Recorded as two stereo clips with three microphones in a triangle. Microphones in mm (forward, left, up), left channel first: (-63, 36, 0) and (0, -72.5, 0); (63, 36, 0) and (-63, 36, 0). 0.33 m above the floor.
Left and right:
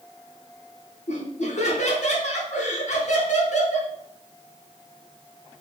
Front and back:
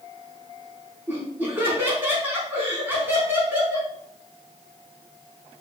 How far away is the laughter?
About 4 m.